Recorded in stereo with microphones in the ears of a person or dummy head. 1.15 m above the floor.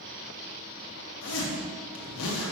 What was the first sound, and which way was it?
A zipper, 75° left (ahead or behind).